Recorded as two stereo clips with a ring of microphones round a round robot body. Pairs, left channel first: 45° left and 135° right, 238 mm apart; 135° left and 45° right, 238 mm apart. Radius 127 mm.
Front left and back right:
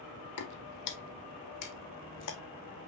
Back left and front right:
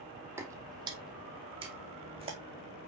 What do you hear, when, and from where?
0.4 s footsteps: 35° left, 0.9 m; by 2.4 s 20° left, 1.9 m